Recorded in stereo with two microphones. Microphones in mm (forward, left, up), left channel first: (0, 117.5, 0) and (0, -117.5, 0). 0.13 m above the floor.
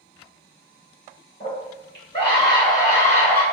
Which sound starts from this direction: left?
A scream, at 1.4 s.